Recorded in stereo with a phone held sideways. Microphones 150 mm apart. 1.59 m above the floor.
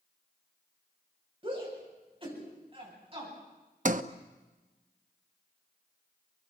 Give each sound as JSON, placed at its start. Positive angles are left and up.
{"t": 1.4, "sound": "a shout", "side_deg": -30, "distance_m": 8.5}
{"t": 3.9, "sound": "a sliding door", "side_deg": -55, "distance_m": 0.9}